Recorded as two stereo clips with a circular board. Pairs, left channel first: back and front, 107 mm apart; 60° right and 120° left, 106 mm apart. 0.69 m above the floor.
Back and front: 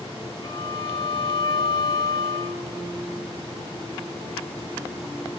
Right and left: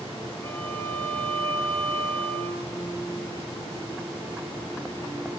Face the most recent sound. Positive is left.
turn(degrees=-135)